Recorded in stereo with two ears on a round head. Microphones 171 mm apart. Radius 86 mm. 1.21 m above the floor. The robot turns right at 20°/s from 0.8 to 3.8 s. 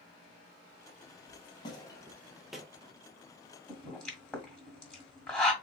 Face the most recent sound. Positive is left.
turn(degrees=5)  # may be behind; listen again after turning